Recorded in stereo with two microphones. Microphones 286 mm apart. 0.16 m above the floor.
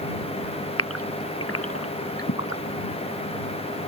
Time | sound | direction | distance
0.8 | a gasp | 50° left (ahead or behind) | ?